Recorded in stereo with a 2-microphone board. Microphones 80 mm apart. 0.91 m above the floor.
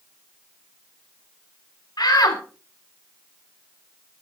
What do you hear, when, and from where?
2.0 s a shout: 65° left (ahead or behind), 3 m